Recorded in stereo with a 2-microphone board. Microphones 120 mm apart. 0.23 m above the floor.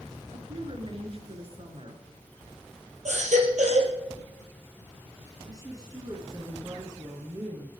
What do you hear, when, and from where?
0.3 s a woman speaking: 50° right (ahead or behind), 3 m
3.0 s a baby crying: 80° right, 4 m
5.5 s a woman speaking: 30° right (ahead or behind), 3 m